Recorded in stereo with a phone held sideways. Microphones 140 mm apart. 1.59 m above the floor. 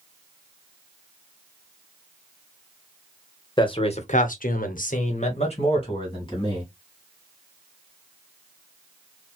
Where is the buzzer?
No buzzer in this recording.